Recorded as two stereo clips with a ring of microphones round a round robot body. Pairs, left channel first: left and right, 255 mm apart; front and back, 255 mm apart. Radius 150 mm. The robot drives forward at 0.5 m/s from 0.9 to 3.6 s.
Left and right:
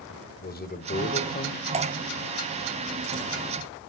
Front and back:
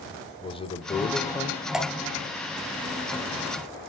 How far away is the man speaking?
About 1.6 m.